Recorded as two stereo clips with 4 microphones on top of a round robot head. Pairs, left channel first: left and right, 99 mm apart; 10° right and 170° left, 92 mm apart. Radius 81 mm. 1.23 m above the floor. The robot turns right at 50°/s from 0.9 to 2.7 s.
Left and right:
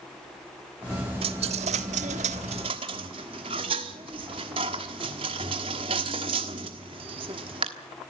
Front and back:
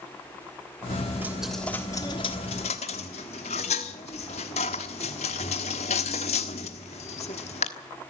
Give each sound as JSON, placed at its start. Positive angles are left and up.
{"t": 1.2, "sound": "a dropped coin", "azimuth_deg": -110, "distance_m": 1.3}